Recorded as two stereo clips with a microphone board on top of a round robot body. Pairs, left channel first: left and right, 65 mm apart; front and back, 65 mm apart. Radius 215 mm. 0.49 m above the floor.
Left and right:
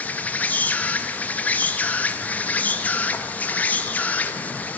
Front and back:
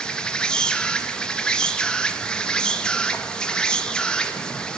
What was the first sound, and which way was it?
An insect, 60° left.